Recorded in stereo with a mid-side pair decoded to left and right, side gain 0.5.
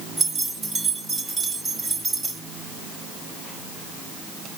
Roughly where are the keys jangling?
Ahead right.